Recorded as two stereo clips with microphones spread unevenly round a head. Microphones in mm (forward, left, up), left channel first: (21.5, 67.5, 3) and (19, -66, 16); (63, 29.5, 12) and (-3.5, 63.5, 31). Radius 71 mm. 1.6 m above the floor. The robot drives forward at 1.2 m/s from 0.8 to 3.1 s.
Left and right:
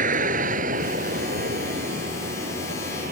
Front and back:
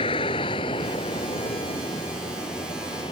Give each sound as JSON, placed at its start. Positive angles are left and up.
{"t": 0.0, "sound": "a vehicle", "azimuth_deg": -65}